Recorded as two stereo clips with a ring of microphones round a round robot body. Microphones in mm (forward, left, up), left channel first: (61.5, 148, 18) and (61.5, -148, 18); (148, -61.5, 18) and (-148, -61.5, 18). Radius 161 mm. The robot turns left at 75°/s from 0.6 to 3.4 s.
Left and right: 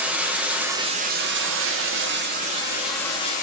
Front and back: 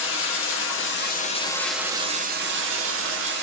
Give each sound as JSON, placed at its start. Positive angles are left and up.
{"t": 0.0, "sound": "running water", "azimuth_deg": -5, "distance_m": 0.7}